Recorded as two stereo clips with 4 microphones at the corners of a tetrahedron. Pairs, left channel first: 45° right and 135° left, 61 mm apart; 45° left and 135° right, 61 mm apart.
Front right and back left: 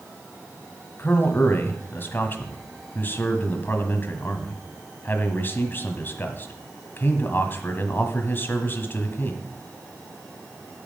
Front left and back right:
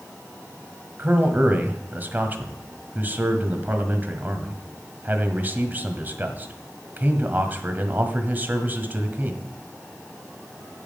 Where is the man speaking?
90° right, 1.5 m.